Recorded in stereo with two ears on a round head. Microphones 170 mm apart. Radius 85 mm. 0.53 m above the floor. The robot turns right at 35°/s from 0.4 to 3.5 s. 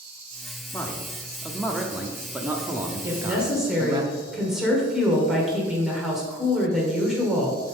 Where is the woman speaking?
15° right (ahead or behind), 1.7 m; by 7.8 s 5° right (ahead or behind), 1.7 m.